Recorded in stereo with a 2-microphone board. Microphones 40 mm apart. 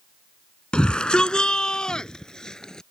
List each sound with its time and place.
0.7 s a shout: 25° left (ahead or behind); by 2.8 s 15° left (ahead or behind)